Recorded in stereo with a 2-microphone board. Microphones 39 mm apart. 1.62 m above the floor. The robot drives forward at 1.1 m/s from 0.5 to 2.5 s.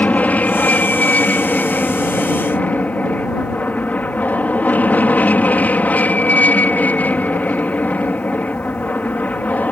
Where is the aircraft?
40° left (ahead or behind).